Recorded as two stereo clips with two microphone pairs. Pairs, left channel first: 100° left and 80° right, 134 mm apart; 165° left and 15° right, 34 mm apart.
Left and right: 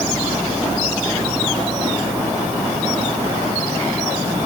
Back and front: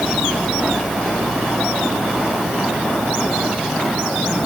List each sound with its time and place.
Only background noise.